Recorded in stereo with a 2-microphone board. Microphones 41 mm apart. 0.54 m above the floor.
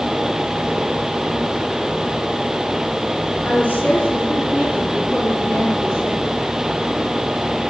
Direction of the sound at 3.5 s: 45° left (ahead or behind).